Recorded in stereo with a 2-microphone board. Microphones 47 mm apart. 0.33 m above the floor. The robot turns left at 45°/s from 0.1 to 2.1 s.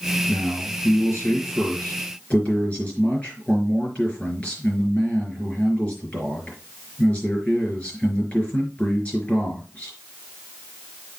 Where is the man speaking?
110° left, 5 m; by 9.9 s 30° left, 5 m.